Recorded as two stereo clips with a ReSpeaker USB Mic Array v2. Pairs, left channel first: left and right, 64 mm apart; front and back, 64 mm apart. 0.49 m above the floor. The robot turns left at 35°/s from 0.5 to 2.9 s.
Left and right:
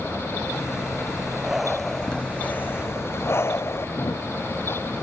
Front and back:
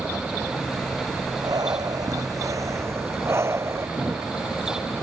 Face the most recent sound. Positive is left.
turn(degrees=120)